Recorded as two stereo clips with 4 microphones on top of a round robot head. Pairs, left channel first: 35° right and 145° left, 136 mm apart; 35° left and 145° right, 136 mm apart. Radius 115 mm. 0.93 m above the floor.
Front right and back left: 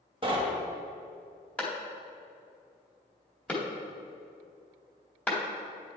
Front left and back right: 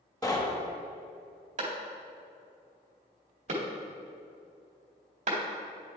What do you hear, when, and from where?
0.2 s knocking: 95° left, 1.2 m
1.6 s a clap: 115° right, 2 m